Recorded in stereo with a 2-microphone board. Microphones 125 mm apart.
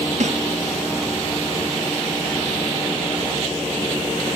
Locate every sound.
0.2 s a snare drum: 75° right (ahead or behind), 1.6 m